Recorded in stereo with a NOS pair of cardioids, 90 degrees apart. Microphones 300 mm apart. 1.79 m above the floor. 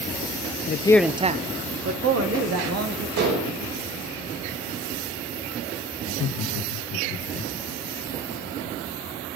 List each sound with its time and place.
0.7 s a man speaking: 35° left, 0.7 m; by 3.1 s 55° right, 3 m
3.2 s dishes clattering: 70° right, 6 m
6.0 s laughter: 50° left, 2 m